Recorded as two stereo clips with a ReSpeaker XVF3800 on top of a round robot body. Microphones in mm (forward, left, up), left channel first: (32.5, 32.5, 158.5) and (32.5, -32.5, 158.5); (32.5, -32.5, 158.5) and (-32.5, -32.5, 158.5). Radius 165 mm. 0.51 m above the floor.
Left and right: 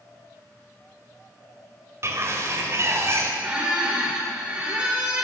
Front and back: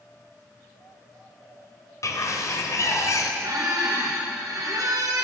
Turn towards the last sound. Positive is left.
turn(degrees=-165)